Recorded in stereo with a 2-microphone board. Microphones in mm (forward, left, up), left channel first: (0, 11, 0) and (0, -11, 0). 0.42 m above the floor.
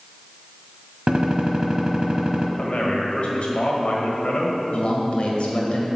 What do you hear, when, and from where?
1.1 s a gunshot: 30° right (ahead or behind), 1.0 m
2.6 s a man speaking: 60° left (ahead or behind), 1.6 m
4.7 s a man speaking: 55° left (ahead or behind), 1.7 m